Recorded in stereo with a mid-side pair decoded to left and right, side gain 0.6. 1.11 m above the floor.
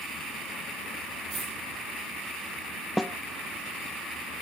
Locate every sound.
1.3 s a dropped coin: 30° right, 7 m
3.0 s a snare drum: 5° left, 0.7 m